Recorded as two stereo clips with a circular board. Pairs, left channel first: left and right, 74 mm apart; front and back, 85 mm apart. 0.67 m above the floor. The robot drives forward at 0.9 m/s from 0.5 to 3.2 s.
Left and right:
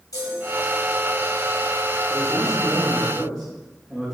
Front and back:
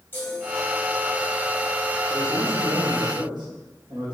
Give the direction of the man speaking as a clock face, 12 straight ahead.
6 o'clock.